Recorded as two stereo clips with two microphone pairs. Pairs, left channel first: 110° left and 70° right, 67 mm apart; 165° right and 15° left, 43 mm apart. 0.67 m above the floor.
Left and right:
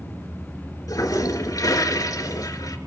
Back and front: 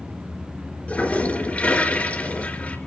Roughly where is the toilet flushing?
Behind left.